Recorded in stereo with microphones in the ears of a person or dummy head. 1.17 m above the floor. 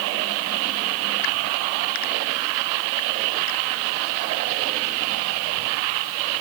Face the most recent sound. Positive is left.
No sound to turn to.